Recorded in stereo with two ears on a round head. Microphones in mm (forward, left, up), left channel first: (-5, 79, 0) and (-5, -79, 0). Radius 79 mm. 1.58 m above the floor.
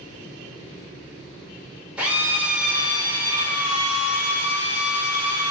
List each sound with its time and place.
2.0 s a drill: 10° right (ahead or behind), 4 m